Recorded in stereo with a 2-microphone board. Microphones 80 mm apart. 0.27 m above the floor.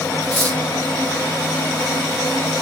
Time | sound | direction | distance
0.2 | cutlery clinking | 15° left (ahead or behind) | 2.5 m